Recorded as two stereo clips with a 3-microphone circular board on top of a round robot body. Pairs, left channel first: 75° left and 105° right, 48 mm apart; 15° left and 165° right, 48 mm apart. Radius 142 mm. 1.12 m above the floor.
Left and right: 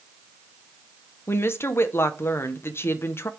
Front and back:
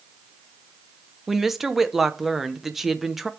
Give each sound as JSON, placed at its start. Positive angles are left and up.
{"t": 1.3, "sound": "a woman speaking", "azimuth_deg": 110, "distance_m": 0.9}